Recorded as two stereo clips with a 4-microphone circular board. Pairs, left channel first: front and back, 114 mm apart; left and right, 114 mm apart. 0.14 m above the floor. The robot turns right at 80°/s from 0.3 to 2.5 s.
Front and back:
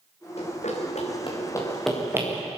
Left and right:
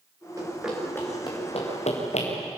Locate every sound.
0.4 s running footsteps: 30° right, 7 m; by 2.3 s 120° left, 5.5 m